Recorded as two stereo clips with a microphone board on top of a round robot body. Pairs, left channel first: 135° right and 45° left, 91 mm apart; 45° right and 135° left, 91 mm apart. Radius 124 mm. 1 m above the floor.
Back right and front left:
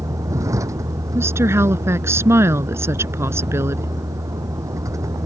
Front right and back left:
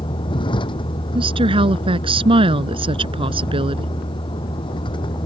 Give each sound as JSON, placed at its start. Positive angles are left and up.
{"t": 0.0, "sound": "a vehicle", "azimuth_deg": -10}
{"t": 1.1, "sound": "a woman speaking", "azimuth_deg": 110}